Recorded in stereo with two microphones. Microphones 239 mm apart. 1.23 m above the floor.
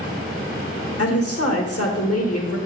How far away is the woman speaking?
About 1.9 m.